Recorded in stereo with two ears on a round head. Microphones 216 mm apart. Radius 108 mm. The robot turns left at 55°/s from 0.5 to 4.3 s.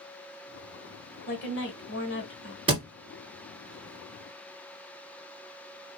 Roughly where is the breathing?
I don't hear breathing.